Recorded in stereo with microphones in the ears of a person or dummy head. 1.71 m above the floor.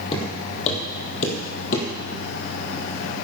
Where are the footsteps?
35° left (ahead or behind), 3.5 m; by 1.9 s 50° left (ahead or behind), 3.5 m.